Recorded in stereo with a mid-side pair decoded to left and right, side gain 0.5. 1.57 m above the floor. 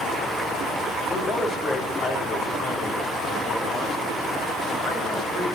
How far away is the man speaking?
About 4 m.